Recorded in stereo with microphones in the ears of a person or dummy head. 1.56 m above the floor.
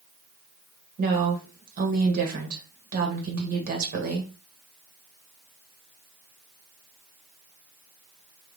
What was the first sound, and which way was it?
A woman speaking, 50° right (ahead or behind).